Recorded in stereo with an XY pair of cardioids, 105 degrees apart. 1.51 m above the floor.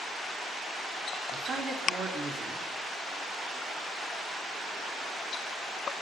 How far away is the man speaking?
About 3.5 m.